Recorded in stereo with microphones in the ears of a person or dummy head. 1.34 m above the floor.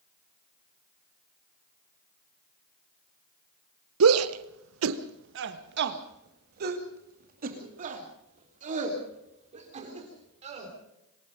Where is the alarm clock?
No alarm clock in this recording.